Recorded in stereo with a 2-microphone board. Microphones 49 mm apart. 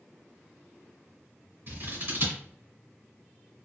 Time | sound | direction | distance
1.7 | scissors | 55° right (ahead or behind) | 2 m